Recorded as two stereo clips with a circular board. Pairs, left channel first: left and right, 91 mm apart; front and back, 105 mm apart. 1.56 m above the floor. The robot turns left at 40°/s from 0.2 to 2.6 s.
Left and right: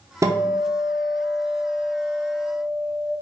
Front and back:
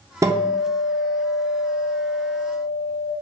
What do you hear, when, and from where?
0.2 s a guitar: 130° right, 0.6 m; by 3.1 s 135° left, 0.6 m